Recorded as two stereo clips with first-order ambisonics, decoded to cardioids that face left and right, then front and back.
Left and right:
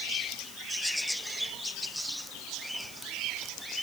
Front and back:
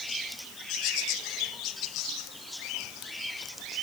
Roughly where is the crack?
I don't hear a crack.